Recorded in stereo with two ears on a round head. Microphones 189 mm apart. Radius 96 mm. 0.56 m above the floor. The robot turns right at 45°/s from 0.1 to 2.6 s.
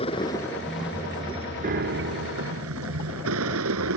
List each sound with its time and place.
0.0 s a vehicle: 150° left; by 4.0 s 95° right
1.6 s a piano: 135° right; by 2.6 s 90° right